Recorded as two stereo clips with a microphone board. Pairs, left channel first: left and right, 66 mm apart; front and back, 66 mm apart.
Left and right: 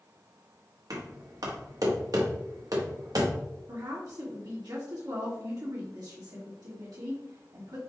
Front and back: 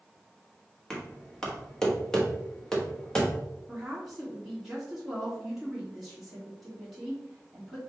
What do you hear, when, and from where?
0.9 s knocking: 80° right, 1.2 m
3.7 s a woman speaking: 95° right, 1.7 m